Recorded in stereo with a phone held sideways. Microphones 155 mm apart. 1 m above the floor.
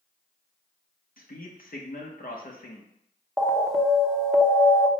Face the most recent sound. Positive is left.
turn(degrees=0)  # may be behind; listen again after turning